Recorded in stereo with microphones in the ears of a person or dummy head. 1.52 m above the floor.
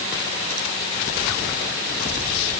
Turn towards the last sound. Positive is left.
No sound to turn to.